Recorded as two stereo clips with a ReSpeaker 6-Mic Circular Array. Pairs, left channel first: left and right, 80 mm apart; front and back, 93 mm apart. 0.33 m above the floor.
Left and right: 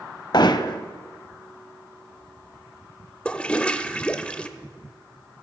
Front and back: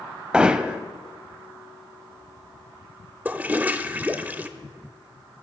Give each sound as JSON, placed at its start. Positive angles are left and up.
{"t": 0.3, "sound": "hammering", "azimuth_deg": 100, "distance_m": 0.6}
{"t": 3.2, "sound": "a toilet flushing", "azimuth_deg": 140, "distance_m": 0.6}